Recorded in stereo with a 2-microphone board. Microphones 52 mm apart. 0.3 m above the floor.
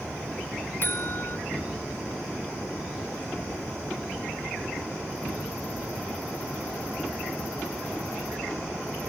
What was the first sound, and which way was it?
A buzzer, 45° left (ahead or behind).